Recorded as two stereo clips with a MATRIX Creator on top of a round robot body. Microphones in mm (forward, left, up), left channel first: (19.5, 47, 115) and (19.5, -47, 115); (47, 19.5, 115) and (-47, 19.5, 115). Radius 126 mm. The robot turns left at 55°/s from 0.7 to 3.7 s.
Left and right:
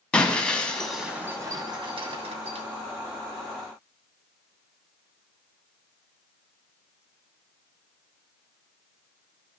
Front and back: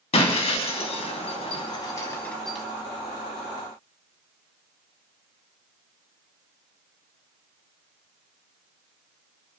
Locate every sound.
0.1 s breaking glass: 10° left, 2.5 m; by 2.6 s 95° right, 2.5 m